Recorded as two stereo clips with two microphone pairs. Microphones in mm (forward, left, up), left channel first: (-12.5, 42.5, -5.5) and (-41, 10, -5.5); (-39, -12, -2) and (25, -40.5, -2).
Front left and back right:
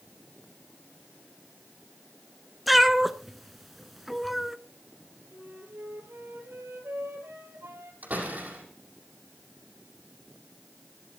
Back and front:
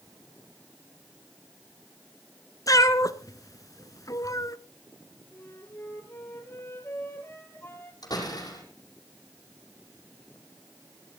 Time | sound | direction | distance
2.7 | a cat meowing | 140° left | 0.9 m
5.3 | a flute | 145° right | 3 m
8.0 | a door slam | 175° left | 6.5 m